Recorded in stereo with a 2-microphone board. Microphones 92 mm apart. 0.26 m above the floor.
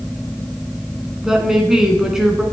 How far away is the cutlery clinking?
No cutlery clinking in this recording.